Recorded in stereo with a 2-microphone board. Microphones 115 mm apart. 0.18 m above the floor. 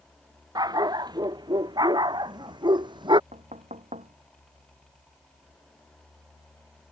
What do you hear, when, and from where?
0.6 s a dog barking: 35° right (ahead or behind); by 3.2 s 45° right (ahead or behind)
3.3 s knocking: 85° right